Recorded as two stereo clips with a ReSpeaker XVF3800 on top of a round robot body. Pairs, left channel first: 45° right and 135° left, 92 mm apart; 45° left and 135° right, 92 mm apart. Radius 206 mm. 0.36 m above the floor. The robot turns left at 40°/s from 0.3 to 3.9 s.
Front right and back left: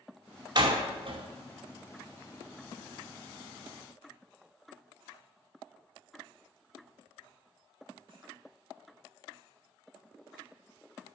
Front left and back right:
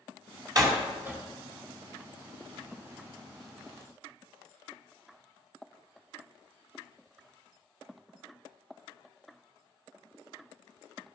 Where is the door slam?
175° left, 2.5 m; by 1.2 s 150° left, 2.5 m.